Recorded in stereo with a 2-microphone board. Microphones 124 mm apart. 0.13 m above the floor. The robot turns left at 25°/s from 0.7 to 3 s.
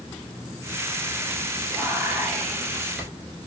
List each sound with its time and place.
1.7 s whispering: 145° right, 1.6 m; by 3.1 s 175° right, 1.6 m